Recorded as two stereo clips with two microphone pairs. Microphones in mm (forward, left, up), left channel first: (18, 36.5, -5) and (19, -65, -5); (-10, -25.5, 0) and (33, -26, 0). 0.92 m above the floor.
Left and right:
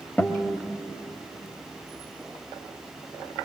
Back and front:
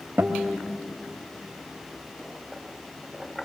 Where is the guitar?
15° left, 1.4 m.